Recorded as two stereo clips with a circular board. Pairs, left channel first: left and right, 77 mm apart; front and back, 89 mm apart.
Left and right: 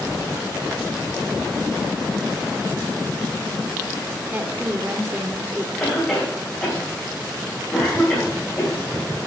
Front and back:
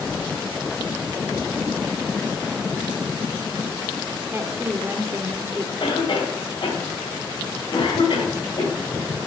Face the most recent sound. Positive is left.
turn(degrees=35)